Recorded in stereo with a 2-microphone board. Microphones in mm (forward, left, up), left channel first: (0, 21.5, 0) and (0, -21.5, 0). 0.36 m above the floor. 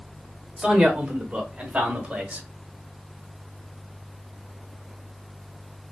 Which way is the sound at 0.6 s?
10° right (ahead or behind).